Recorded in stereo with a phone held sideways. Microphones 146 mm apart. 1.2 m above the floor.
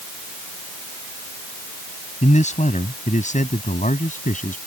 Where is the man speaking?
55° left (ahead or behind); by 4.6 s 60° left (ahead or behind).